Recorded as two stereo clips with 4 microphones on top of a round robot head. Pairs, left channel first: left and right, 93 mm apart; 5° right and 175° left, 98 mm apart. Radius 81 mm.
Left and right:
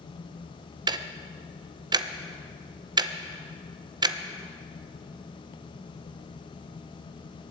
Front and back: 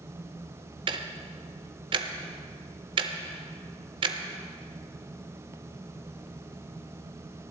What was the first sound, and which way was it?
Ticking, 135° right.